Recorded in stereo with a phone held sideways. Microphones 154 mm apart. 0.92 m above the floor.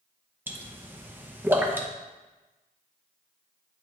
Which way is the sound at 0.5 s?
15° right (ahead or behind).